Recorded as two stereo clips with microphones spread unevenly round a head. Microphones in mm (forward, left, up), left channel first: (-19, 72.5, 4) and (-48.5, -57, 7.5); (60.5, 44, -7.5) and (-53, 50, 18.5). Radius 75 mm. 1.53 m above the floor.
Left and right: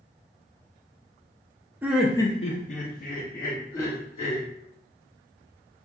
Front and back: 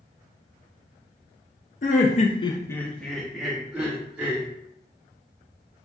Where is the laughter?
25° right, 0.6 m; by 4.5 s 105° left, 1.7 m.